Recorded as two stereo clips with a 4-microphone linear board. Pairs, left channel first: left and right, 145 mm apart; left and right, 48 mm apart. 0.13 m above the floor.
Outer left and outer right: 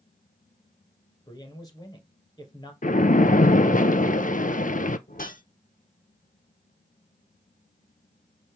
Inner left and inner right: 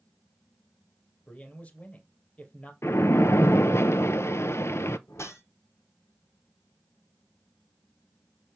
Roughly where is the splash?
Left.